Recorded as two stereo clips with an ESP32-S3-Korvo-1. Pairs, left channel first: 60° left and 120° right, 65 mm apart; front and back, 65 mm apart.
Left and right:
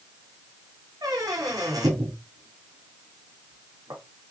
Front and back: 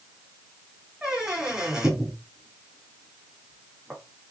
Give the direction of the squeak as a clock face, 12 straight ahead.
3 o'clock.